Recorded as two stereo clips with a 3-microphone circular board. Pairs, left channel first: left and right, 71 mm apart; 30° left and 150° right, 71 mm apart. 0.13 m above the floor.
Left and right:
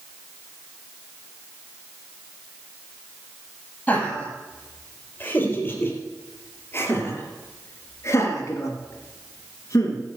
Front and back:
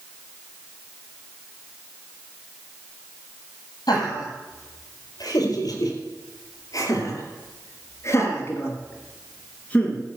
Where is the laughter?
20° left, 5 m; by 10.0 s 100° left, 2.5 m.